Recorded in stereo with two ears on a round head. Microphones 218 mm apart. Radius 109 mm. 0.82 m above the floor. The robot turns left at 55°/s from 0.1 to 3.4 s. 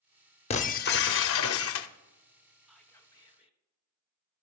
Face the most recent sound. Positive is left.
turn(degrees=140)